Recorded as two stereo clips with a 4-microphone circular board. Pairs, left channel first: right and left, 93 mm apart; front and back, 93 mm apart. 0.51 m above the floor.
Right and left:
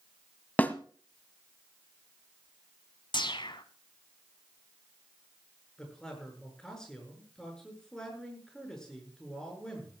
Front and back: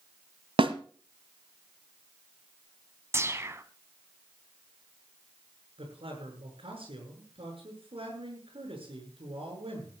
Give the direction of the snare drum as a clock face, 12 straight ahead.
5 o'clock.